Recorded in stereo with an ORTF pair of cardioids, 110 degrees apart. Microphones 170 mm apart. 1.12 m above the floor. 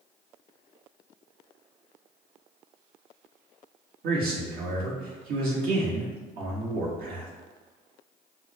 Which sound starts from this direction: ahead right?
A man speaking, at 4.0 s.